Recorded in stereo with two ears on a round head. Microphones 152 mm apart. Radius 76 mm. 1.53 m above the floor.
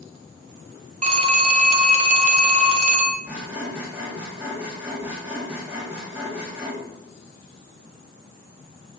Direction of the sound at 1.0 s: 40° right (ahead or behind).